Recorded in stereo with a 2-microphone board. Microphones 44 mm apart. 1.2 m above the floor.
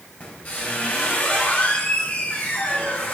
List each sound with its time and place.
0.2 s a squeak: 35° left (ahead or behind), 4 m